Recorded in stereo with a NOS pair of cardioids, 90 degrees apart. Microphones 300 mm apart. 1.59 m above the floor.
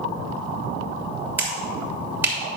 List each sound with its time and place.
1.4 s a finger snap: 5° right, 3 m